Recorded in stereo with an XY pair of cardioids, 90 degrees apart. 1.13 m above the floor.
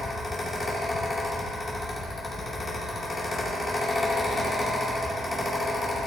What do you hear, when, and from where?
0.0 s a fan: 35° left, 2.5 m